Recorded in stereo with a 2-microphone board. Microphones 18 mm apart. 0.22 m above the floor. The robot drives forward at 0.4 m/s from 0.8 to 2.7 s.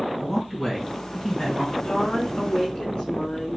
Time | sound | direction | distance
0.2 | a man speaking | 10° left (ahead or behind) | 1.9 m
1.8 | a woman speaking | 65° left (ahead or behind) | 2.5 m